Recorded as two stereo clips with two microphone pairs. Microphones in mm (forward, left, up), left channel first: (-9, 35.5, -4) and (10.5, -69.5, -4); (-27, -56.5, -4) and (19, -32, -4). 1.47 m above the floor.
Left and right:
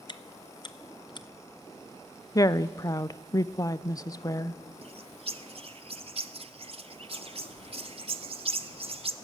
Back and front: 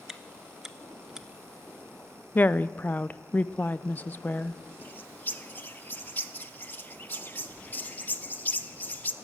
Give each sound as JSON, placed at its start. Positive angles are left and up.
{"t": 0.1, "sound": "chewing", "azimuth_deg": 110, "distance_m": 0.7}
{"t": 2.4, "sound": "a woman speaking", "azimuth_deg": 160, "distance_m": 0.5}
{"t": 4.8, "sound": "a bird", "azimuth_deg": -95, "distance_m": 0.6}